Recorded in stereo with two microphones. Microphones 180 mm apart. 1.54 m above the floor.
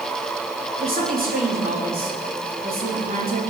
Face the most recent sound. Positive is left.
turn(degrees=-50)  # may be behind; listen again after turning